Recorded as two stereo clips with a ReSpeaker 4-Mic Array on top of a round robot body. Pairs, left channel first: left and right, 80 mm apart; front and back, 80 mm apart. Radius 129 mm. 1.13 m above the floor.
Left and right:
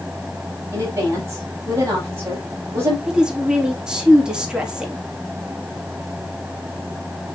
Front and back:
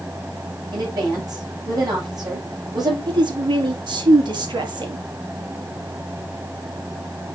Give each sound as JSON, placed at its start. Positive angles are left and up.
{"t": 0.7, "sound": "a woman speaking", "azimuth_deg": -145, "distance_m": 8.0}
{"t": 3.1, "sound": "a woman speaking", "azimuth_deg": -170, "distance_m": 3.0}